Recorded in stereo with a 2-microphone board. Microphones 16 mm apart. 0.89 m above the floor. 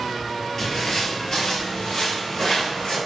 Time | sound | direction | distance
0.6 | footsteps | 25° left (ahead or behind) | 1.1 m